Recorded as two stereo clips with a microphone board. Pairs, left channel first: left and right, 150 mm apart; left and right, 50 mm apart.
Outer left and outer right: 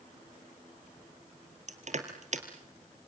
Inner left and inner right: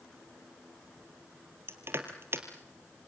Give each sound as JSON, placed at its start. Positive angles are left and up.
{"t": 1.7, "sound": "crushing", "side_deg": -55, "distance_m": 2.5}